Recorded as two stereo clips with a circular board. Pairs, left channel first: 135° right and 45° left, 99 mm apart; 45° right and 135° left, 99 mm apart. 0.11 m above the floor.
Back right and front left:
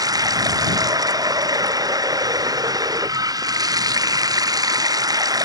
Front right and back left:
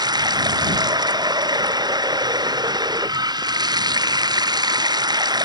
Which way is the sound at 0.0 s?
95° left.